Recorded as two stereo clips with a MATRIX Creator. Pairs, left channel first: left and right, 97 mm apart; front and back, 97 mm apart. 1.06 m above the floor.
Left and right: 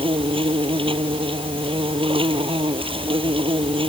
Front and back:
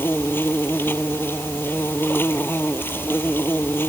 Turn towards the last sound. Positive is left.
turn(degrees=-65)